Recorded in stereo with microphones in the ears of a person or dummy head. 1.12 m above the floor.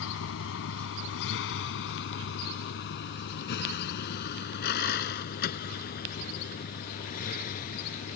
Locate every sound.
0.0 s a vehicle: 85° left; by 8.2 s 50° left (ahead or behind)